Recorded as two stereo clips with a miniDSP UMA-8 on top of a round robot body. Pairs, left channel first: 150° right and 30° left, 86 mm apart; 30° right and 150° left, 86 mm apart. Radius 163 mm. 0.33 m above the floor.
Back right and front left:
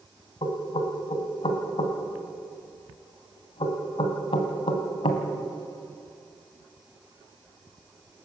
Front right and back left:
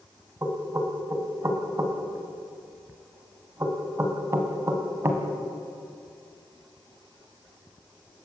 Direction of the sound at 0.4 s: 150° right.